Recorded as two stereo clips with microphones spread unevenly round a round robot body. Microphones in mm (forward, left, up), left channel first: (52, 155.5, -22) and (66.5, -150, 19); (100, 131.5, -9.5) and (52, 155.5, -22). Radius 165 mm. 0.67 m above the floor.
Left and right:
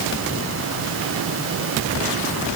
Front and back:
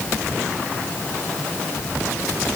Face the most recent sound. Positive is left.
No sound to turn to.